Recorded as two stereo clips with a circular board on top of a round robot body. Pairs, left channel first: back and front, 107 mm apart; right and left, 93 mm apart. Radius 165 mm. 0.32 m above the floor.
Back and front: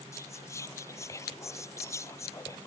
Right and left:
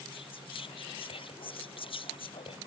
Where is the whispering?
115° right.